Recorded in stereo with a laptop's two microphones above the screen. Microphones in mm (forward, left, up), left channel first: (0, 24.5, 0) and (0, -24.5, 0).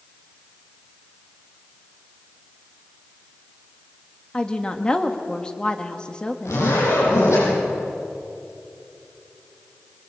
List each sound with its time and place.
4.3 s a woman speaking: 20° left (ahead or behind), 1.5 m
6.5 s a zipper: 85° left, 10 m